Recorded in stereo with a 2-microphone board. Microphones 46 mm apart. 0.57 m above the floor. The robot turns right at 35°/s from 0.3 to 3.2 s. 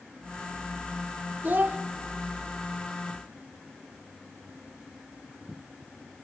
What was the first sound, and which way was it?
A child speaking, 40° right (ahead or behind).